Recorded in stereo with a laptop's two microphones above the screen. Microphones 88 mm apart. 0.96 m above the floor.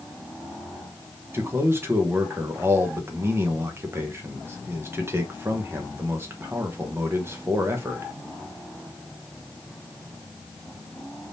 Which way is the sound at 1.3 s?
30° right (ahead or behind).